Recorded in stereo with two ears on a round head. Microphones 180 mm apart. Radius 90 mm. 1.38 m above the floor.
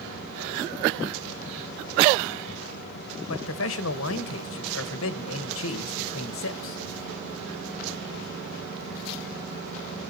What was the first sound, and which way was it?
A man speaking, 75° left (ahead or behind).